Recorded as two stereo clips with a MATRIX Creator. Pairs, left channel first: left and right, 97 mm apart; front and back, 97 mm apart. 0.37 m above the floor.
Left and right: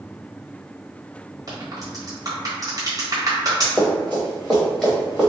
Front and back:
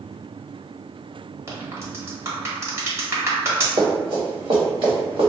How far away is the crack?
About 1.2 m.